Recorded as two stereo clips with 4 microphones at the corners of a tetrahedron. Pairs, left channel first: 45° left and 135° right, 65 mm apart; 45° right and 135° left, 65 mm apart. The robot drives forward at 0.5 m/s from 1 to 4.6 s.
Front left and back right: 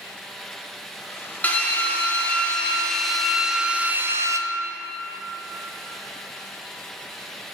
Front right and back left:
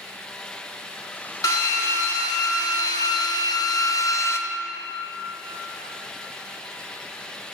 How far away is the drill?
About 1.5 m.